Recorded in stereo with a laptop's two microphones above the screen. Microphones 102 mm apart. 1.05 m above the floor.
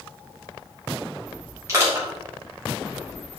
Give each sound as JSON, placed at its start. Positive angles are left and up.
{"t": 1.7, "sound": "crushing", "side_deg": -30, "distance_m": 3.0}